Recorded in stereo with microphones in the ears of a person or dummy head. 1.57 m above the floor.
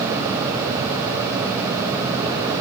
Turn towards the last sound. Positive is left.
No sound to turn to.